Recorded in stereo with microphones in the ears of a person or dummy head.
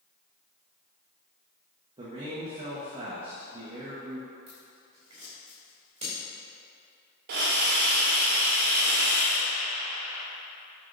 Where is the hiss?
60° right (ahead or behind), 1.3 m.